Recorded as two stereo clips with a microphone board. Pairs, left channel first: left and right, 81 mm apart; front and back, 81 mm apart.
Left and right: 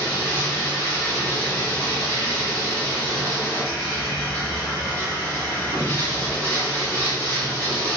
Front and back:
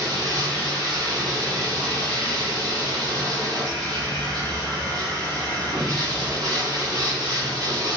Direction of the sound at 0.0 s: 150° left.